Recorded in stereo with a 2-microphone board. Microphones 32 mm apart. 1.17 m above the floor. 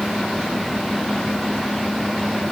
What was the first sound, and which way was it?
Only background noise.